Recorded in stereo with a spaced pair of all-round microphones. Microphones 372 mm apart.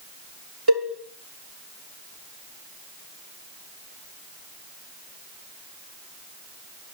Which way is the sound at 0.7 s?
80° right.